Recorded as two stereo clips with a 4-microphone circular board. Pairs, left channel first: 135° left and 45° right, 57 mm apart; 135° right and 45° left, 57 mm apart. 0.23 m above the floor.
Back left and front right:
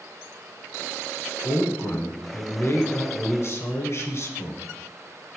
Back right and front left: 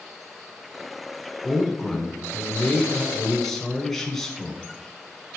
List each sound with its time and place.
1.4 s a man speaking: 145° left, 2.0 m